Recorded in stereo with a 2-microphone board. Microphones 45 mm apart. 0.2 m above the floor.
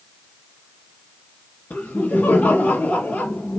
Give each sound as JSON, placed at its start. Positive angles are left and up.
{"t": 1.7, "sound": "laughter", "side_deg": 50, "distance_m": 3.5}